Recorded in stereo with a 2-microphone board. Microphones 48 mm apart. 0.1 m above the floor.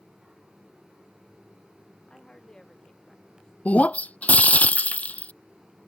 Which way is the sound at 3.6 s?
35° left (ahead or behind).